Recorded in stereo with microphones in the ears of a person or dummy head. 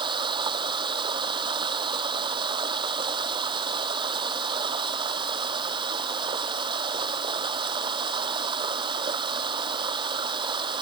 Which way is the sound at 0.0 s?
25° right (ahead or behind).